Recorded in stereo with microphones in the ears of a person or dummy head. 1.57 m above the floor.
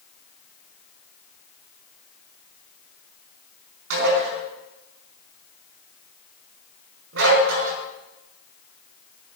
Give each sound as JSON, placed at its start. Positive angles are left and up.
{"t": 3.9, "sound": "dishes clattering", "side_deg": -80, "distance_m": 5.5}